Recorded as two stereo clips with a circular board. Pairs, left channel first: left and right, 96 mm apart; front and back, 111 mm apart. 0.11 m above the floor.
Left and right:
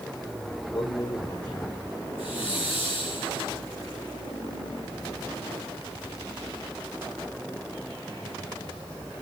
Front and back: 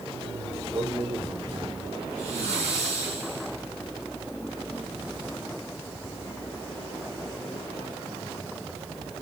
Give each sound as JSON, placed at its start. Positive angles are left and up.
{"t": 0.7, "sound": "a man speaking", "azimuth_deg": 130, "distance_m": 7.0}
{"t": 2.2, "sound": "a hiss", "azimuth_deg": 65, "distance_m": 8.5}